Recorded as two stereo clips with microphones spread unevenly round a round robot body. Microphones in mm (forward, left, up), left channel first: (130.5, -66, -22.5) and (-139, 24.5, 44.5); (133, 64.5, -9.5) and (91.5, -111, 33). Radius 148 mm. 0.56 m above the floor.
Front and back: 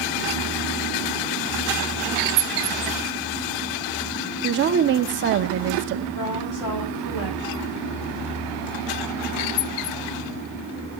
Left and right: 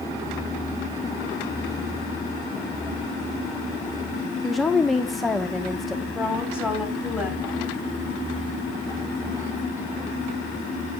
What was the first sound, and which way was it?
A woman speaking, 135° left.